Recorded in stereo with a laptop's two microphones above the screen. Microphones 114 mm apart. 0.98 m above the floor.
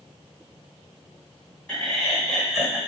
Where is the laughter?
5° left (ahead or behind), 5 m; by 2.8 s 5° right (ahead or behind), 5 m.